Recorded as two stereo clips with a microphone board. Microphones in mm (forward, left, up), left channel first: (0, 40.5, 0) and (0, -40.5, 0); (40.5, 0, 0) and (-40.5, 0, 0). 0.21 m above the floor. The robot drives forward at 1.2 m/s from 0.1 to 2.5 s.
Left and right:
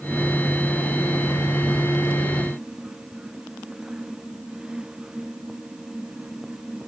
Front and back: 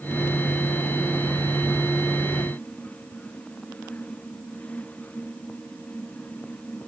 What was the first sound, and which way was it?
Only background noise.